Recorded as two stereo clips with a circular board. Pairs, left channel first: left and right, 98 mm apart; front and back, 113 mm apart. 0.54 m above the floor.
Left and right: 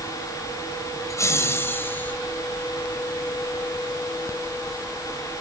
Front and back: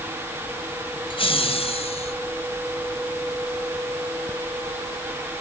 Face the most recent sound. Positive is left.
turn(degrees=20)